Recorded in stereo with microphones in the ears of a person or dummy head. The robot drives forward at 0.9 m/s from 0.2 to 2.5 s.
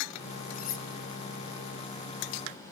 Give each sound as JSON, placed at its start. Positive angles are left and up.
{"t": 0.5, "sound": "cutlery clinking", "side_deg": 55, "distance_m": 1.5}